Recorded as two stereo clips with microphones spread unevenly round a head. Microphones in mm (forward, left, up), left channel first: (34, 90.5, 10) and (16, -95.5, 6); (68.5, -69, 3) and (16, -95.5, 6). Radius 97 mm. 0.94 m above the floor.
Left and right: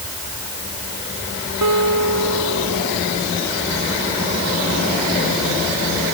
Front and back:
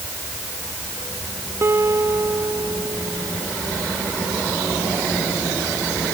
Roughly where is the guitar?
Right.